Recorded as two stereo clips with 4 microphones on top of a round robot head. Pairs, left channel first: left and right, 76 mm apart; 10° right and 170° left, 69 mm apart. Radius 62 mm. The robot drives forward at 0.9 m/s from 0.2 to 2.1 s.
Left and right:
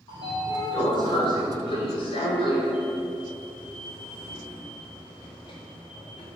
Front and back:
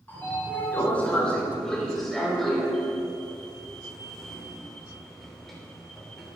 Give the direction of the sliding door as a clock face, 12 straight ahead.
10 o'clock.